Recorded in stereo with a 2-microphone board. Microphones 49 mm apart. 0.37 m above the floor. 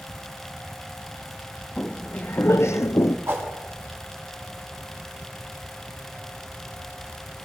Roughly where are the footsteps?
Left.